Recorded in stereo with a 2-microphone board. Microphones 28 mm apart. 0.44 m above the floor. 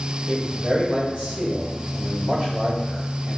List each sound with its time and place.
0.3 s a man speaking: 45° right (ahead or behind), 1.8 m